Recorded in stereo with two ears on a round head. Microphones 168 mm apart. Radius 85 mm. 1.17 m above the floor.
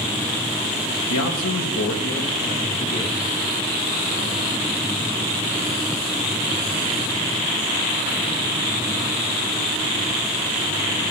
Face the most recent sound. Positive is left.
turn(degrees=30)  # may be behind; listen again after turning